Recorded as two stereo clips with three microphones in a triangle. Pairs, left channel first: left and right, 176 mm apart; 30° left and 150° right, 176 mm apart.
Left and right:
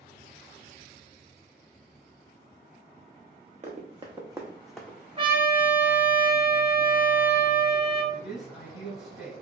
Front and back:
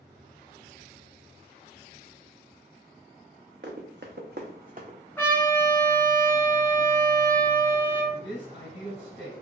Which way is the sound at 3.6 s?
140° right.